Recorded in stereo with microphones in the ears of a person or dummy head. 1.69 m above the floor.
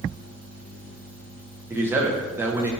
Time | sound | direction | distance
1.7 | a man speaking | 10° right (ahead or behind) | 0.6 m